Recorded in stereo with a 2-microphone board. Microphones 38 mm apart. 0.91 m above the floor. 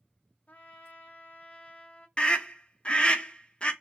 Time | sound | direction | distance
0.5 | a trumpet | 35° left (ahead or behind) | 0.6 m
2.2 | a scream | 25° left (ahead or behind) | 0.5 m